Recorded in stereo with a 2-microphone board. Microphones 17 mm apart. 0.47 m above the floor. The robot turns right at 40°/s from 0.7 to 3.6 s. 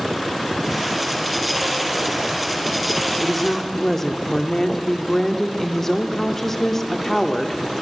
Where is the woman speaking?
15° left (ahead or behind), 0.7 m; by 7.6 s 20° left (ahead or behind), 0.7 m.